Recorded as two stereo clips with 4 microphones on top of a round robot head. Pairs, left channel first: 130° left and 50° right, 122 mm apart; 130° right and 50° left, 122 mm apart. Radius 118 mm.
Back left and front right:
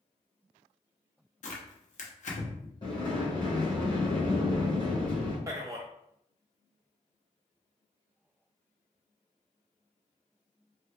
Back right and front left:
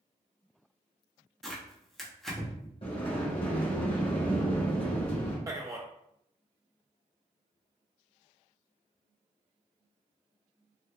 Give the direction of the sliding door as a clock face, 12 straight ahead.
6 o'clock.